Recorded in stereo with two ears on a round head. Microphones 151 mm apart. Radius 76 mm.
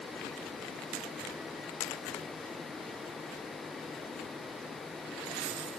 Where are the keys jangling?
I don't hear keys jangling.